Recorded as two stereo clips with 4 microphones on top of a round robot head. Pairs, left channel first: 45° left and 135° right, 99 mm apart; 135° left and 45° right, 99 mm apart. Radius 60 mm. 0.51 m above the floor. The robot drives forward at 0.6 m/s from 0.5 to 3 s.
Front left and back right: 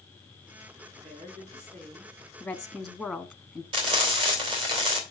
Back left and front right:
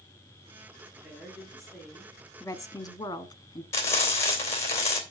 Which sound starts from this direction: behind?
Frying, at 3.7 s.